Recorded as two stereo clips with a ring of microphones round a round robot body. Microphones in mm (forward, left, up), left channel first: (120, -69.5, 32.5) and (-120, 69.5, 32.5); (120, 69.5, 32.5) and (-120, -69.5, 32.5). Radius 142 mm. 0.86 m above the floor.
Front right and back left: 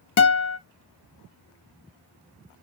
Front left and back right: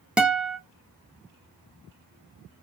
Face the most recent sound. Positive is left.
turn(degrees=-65)